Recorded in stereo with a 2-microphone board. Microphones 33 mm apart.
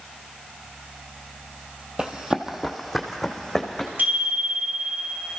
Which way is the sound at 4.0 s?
70° right (ahead or behind).